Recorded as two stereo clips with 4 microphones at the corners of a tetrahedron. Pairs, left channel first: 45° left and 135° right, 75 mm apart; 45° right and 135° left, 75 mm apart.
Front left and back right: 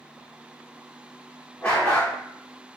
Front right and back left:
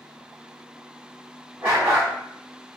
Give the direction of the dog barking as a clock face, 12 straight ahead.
9 o'clock.